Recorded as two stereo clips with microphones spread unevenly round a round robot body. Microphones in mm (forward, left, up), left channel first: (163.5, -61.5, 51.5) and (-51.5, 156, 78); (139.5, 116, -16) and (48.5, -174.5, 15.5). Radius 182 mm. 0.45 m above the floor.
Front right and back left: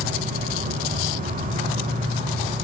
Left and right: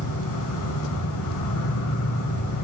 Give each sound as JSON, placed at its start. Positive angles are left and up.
{"t": 0.0, "sound": "an insect", "azimuth_deg": 70, "distance_m": 2.5}